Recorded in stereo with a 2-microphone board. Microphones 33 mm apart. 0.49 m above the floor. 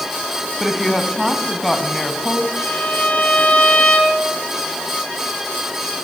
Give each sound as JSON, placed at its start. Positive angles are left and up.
{"t": 0.6, "sound": "a woman speaking", "side_deg": 5, "distance_m": 4.0}
{"t": 2.6, "sound": "a violin", "side_deg": 35, "distance_m": 4.0}